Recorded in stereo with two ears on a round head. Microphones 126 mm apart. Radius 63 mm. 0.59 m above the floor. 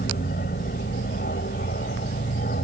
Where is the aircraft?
65° left (ahead or behind); by 2.6 s 60° left (ahead or behind).